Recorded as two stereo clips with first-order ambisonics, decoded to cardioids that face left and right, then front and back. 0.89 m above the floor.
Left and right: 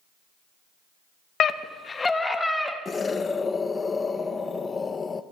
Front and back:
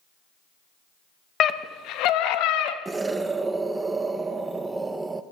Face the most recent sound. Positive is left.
turn(degrees=125)